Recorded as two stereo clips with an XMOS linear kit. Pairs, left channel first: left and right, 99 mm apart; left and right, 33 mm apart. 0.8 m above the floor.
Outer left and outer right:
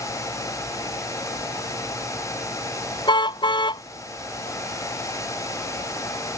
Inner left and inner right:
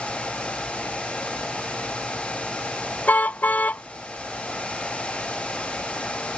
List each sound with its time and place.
3.1 s a car horn: 50° left (ahead or behind)